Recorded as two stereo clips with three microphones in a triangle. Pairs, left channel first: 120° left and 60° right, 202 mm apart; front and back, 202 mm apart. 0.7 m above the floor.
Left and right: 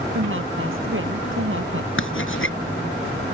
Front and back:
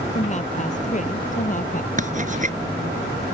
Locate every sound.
0.1 s a woman speaking: 55° right; by 1.9 s 50° right
2.0 s writing: 130° left